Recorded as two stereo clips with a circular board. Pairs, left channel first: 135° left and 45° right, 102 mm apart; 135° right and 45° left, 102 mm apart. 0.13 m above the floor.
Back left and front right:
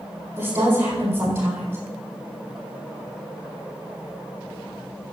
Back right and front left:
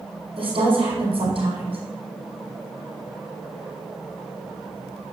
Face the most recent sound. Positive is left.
turn(degrees=20)